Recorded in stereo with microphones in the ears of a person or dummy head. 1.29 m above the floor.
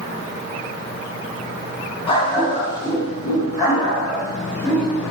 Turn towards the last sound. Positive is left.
turn(degrees=15)  # may be behind; listen again after turning